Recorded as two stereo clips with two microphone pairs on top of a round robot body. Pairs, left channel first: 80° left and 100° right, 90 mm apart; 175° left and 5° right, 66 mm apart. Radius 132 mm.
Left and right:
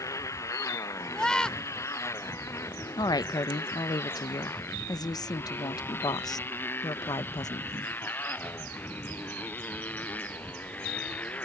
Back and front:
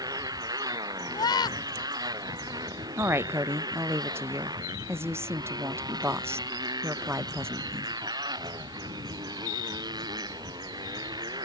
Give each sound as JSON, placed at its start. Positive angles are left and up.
{"t": 0.0, "sound": "a motorcycle", "azimuth_deg": 20}
{"t": 1.1, "sound": "a scream", "azimuth_deg": 165}
{"t": 3.0, "sound": "a woman speaking", "azimuth_deg": 40}